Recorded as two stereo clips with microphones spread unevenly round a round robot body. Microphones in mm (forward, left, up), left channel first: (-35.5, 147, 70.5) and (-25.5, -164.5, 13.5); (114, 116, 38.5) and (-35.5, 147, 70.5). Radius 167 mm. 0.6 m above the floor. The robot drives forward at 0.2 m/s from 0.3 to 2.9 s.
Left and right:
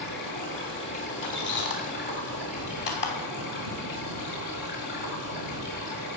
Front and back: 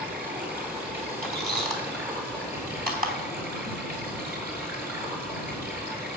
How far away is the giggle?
I don't hear a giggle.